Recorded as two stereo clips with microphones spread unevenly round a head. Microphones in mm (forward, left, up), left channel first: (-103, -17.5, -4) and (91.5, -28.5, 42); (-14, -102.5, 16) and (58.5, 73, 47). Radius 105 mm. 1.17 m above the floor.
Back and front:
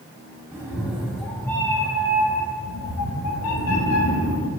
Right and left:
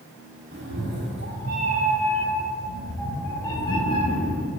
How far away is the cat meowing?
About 1.2 m.